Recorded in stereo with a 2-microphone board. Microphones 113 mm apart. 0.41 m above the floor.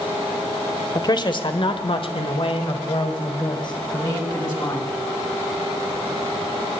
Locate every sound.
0.9 s a man speaking: 35° left (ahead or behind), 1.2 m